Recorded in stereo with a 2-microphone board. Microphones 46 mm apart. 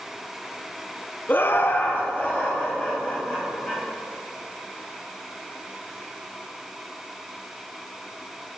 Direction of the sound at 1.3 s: 40° left (ahead or behind).